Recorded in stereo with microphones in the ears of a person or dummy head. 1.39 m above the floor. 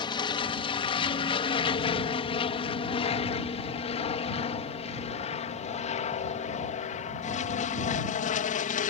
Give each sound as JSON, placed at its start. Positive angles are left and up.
{"t": 0.0, "sound": "an aircraft", "side_deg": 20}